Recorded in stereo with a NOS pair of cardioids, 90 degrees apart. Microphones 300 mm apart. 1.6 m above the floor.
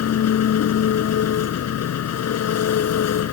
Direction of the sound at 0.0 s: 55° left.